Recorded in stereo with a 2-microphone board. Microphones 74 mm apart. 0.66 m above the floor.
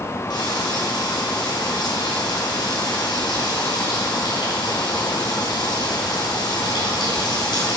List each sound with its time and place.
0.3 s frying: 80° left, 3 m